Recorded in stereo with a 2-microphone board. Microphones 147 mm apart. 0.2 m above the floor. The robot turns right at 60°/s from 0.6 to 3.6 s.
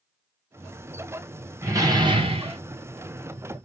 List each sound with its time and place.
1.6 s a door slam: 155° right, 1.1 m; by 2.6 s 95° right, 1.1 m